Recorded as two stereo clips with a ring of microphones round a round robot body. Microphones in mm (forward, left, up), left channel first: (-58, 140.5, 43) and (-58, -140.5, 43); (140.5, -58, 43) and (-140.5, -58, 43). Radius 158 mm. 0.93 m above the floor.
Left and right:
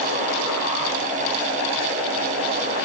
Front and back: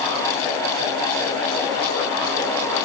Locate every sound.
Only background noise.